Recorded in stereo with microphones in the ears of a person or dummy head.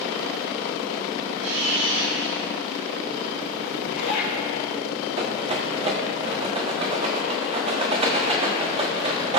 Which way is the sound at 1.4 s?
85° right.